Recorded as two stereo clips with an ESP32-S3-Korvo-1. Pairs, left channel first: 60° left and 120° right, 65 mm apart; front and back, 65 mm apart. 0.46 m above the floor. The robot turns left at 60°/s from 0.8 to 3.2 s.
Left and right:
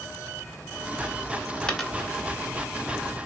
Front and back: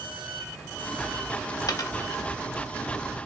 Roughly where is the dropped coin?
Ahead.